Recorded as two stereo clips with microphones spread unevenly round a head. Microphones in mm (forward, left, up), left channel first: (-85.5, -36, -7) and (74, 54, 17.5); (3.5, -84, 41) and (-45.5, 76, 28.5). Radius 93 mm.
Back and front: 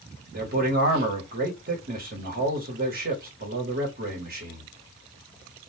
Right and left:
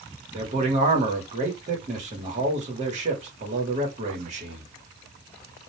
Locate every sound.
0.3 s a man speaking: 70° left, 1.3 m